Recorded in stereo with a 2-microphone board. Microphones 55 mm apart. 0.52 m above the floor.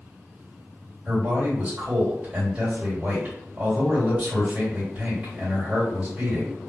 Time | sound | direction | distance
1.1 | a man speaking | 25° right (ahead or behind) | 1.8 m